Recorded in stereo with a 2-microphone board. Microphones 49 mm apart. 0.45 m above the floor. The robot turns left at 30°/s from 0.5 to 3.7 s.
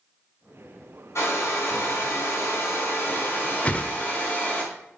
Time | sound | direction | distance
1.1 | a hair dryer | 110° left | 3 m
3.6 | a whoosh | 25° left (ahead or behind) | 0.7 m